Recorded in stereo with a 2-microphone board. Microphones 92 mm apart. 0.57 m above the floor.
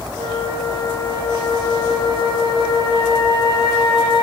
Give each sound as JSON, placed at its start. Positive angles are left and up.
{"t": 0.2, "sound": "a flute", "side_deg": 70, "distance_m": 2.0}